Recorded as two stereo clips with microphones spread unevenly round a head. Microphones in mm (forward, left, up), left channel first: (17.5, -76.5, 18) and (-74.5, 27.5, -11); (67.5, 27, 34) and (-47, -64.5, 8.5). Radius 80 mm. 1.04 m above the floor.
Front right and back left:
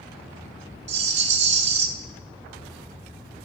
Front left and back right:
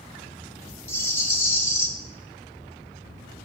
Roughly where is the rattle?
Left.